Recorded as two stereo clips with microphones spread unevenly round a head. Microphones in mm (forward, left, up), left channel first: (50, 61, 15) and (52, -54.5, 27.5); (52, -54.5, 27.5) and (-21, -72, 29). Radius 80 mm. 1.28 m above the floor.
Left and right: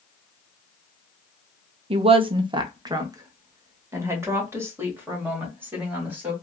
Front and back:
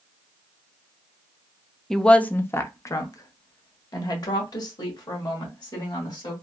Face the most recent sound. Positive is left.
turn(degrees=-15)